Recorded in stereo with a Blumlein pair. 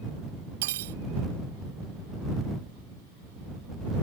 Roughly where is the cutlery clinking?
Ahead right.